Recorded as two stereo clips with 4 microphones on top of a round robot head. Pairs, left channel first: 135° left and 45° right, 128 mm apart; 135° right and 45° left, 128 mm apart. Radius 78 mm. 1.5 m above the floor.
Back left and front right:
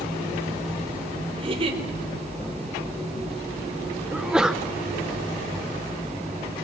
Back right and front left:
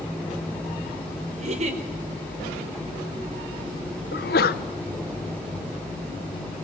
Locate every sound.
1.4 s a giggle: 5° left, 4.5 m
4.1 s a sneeze: 130° right, 0.9 m